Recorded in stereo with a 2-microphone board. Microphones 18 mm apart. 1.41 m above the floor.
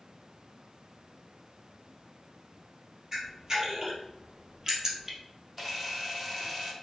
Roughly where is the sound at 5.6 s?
Centre.